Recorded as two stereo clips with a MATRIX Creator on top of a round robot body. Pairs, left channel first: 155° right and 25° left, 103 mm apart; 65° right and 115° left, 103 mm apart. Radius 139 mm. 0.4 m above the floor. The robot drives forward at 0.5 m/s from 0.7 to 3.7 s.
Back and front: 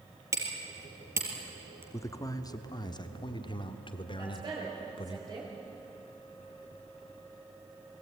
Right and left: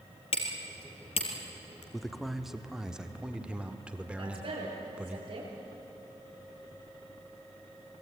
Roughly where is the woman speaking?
Left.